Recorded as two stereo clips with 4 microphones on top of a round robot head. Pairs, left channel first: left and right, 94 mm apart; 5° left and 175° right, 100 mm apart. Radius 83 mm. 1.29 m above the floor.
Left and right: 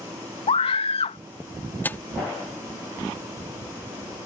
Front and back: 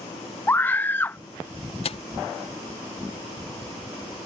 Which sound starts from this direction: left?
A scream, at 0.5 s.